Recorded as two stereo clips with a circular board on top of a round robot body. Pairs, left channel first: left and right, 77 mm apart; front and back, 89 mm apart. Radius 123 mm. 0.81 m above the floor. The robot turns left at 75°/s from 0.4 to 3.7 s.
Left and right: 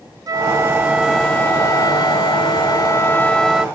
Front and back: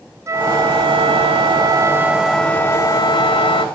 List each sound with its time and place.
0.3 s a flute: 125° right; by 3.6 s 10° right